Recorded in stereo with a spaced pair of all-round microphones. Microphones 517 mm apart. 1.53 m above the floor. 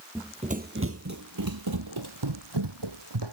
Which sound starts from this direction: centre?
Running footsteps, at 0.1 s.